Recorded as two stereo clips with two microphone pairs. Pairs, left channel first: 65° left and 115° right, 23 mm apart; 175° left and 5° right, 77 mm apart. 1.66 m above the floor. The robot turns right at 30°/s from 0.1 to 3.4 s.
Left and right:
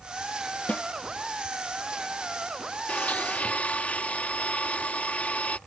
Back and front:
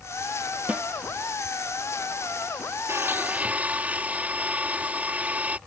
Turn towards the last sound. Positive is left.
turn(degrees=65)